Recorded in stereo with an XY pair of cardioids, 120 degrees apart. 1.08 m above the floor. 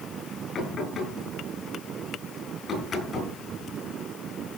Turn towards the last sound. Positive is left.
turn(degrees=40)